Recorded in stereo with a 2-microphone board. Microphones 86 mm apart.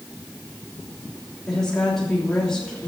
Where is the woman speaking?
5° left (ahead or behind), 3 m.